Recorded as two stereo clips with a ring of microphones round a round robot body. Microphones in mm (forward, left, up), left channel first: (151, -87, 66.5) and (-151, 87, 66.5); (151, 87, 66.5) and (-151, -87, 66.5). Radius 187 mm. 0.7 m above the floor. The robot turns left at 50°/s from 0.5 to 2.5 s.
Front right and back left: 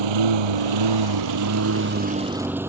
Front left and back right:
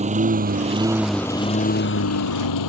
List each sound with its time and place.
0.0 s a lawn mower: 140° left; by 2.7 s 65° left